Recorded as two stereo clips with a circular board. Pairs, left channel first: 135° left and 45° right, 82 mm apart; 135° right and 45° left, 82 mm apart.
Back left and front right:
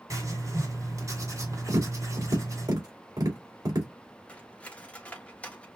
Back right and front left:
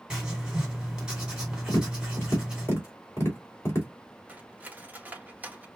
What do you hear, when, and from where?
0.1 s writing: 30° right, 2 m
1.7 s tapping: 80° right, 2.5 m
4.3 s cutlery clinking: 80° left, 0.8 m